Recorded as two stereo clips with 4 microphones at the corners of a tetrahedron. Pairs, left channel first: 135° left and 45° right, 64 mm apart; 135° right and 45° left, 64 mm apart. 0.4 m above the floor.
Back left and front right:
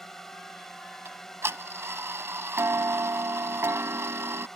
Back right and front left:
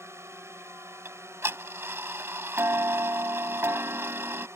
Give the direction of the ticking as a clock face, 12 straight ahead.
12 o'clock.